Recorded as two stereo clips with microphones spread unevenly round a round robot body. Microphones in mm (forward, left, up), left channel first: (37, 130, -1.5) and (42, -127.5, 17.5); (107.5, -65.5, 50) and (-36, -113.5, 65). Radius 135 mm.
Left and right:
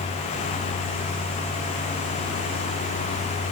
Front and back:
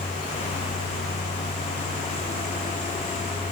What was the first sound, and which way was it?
Only background noise.